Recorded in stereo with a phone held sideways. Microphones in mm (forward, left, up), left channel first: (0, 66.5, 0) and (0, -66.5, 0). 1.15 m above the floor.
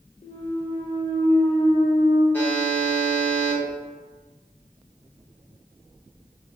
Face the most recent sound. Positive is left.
turn(degrees=15)  # may be behind; listen again after turning